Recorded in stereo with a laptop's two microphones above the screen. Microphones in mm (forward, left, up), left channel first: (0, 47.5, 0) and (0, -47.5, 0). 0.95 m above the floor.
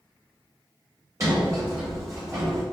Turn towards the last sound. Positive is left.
turn(degrees=-35)  # may be behind; listen again after turning